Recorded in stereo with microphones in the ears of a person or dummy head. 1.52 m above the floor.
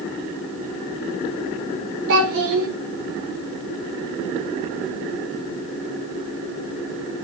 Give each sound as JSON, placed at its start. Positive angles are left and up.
{"t": 2.1, "sound": "a child speaking", "side_deg": -70, "distance_m": 4.0}